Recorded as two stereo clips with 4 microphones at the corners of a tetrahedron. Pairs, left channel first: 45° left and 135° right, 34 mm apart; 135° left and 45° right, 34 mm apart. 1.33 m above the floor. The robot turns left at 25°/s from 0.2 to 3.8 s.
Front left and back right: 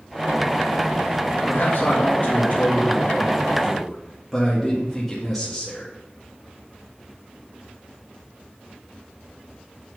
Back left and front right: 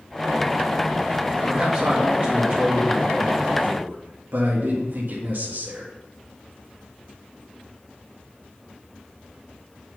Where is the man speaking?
20° left, 1.9 m; by 5.9 s 40° right, 1.9 m.